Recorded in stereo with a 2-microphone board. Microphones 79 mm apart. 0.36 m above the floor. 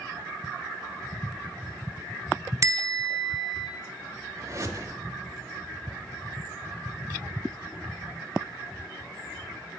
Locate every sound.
2.6 s a bell: 40° right (ahead or behind), 0.8 m
4.4 s a whoosh: 40° right (ahead or behind), 0.8 m